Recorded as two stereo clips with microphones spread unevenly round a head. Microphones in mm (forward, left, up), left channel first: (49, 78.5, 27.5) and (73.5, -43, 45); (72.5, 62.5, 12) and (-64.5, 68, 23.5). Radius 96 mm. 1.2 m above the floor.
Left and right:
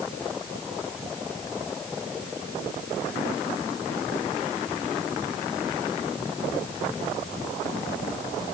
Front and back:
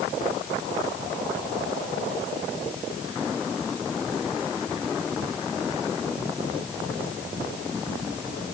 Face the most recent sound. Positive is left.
No sound to turn to.